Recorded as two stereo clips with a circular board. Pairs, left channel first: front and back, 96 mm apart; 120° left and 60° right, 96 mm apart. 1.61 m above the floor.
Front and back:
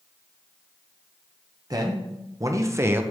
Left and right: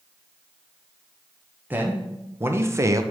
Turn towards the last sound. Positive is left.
turn(degrees=-115)